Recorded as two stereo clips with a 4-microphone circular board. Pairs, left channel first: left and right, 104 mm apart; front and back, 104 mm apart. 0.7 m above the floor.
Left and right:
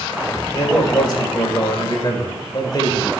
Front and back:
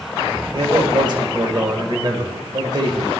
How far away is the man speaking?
About 2 m.